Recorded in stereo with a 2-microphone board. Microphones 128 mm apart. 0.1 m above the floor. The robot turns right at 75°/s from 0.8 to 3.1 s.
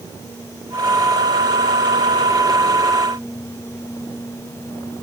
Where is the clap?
No clap in this recording.